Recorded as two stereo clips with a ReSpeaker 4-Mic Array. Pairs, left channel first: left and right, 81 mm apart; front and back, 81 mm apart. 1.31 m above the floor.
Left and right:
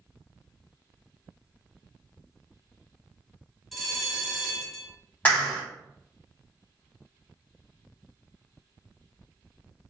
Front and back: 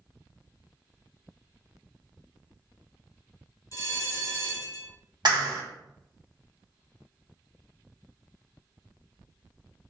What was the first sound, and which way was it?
A bell, 5° right.